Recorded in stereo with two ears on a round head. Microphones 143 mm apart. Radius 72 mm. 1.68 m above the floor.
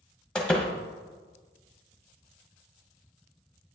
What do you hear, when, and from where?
0.3 s a door slam: 5° left (ahead or behind), 1.0 m